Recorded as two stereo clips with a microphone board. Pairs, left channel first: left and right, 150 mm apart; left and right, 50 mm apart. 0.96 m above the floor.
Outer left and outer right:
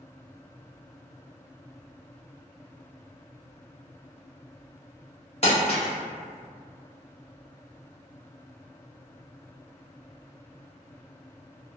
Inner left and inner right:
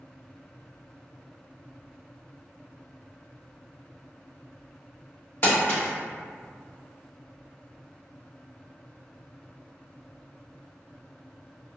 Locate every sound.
5.4 s crumpling: 45° left (ahead or behind), 1.0 m